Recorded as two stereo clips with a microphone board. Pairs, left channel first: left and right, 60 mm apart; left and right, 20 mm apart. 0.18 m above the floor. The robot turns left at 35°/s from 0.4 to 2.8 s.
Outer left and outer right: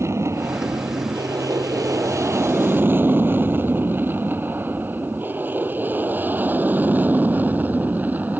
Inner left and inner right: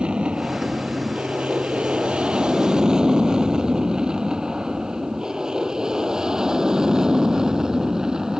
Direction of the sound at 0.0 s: 50° right (ahead or behind).